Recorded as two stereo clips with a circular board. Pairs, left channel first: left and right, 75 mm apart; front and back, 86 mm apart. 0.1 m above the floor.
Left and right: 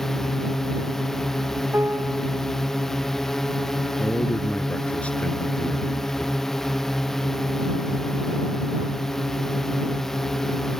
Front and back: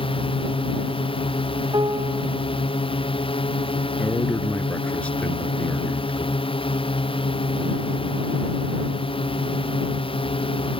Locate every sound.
0.0 s a drone: 5° left
1.7 s a piano: 150° right
4.0 s a man speaking: 50° left